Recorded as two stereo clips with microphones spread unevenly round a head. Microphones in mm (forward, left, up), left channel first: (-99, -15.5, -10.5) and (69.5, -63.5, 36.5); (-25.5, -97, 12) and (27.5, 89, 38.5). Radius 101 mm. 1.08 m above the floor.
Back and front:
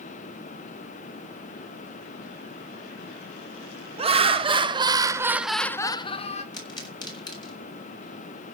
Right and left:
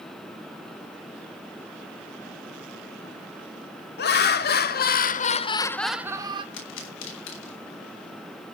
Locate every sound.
4.0 s laughter: 80° right, 1.9 m; by 6.4 s 140° left, 1.0 m
6.5 s a pop: 130° right, 6.5 m